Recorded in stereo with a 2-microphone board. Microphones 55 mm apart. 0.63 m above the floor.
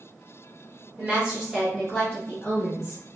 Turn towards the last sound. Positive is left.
turn(degrees=45)  # may be behind; listen again after turning